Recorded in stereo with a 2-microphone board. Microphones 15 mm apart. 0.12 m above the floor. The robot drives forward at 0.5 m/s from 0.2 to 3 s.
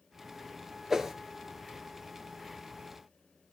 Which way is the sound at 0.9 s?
35° right (ahead or behind).